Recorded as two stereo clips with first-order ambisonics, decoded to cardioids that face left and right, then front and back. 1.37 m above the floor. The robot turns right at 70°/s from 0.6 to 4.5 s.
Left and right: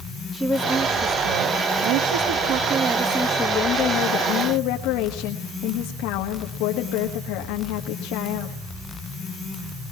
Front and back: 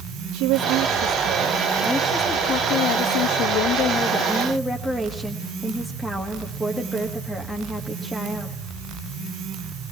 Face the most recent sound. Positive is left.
turn(degrees=85)